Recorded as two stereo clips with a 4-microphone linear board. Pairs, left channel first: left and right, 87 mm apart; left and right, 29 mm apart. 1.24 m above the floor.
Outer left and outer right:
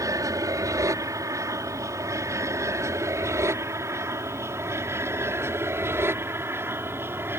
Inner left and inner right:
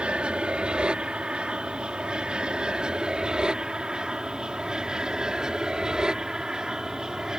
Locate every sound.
0.0 s an aircraft: 40° right (ahead or behind); by 7.4 s 25° right (ahead or behind)